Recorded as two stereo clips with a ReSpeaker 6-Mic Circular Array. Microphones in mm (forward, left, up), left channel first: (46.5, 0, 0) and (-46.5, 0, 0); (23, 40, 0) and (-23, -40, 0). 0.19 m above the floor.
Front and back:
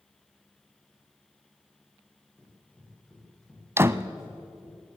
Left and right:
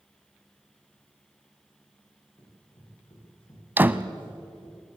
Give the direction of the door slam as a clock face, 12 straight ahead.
5 o'clock.